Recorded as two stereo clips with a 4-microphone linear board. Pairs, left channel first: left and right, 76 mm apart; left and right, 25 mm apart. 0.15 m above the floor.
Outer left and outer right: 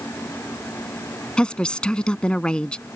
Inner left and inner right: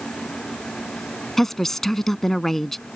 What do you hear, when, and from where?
1.4 s a woman speaking: 15° left (ahead or behind)